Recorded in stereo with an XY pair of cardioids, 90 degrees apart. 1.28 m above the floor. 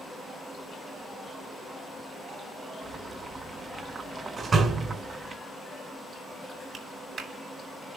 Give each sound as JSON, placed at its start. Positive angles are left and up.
{"t": 2.8, "sound": "boiling", "azimuth_deg": -45, "distance_m": 1.7}
{"t": 4.4, "sound": "a door slam", "azimuth_deg": -45, "distance_m": 4.0}
{"t": 6.7, "sound": "a clap", "azimuth_deg": -55, "distance_m": 3.5}